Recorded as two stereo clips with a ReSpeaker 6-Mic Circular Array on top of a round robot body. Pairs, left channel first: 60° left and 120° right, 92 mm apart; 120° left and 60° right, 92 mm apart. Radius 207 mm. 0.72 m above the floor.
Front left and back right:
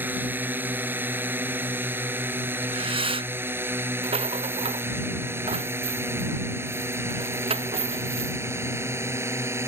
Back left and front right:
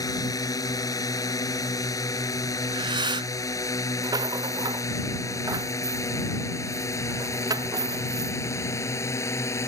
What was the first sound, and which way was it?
A drone, 170° left.